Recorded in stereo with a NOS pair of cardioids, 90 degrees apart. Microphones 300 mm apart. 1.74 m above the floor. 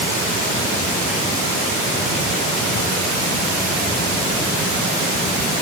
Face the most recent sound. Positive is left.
No sound to turn to.